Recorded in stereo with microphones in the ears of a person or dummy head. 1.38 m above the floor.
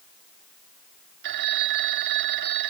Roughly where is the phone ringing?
Right.